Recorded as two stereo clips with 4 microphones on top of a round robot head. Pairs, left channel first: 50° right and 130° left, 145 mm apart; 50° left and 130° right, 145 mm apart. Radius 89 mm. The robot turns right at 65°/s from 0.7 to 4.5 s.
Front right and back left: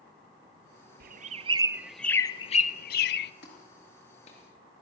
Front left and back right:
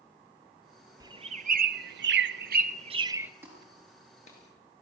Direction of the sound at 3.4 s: 55° right.